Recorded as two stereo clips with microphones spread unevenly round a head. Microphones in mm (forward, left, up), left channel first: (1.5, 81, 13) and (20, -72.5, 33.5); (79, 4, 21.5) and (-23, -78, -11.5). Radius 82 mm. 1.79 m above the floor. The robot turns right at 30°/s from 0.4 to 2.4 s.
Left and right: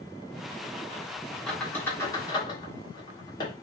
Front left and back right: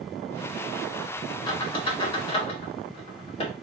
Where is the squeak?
5° left, 1.1 m; by 3.5 s 30° left, 1.1 m.